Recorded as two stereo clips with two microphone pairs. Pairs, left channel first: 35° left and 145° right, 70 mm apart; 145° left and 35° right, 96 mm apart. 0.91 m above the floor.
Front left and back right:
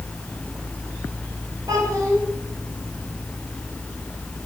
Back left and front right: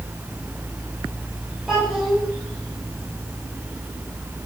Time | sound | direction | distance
1.7 | a child speaking | 120° right | 3.5 m